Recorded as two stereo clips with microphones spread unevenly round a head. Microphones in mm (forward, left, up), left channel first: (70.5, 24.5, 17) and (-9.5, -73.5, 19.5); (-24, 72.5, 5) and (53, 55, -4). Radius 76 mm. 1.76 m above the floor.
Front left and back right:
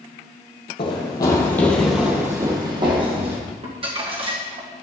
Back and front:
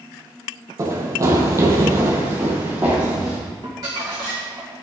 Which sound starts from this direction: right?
Crumpling, at 3.6 s.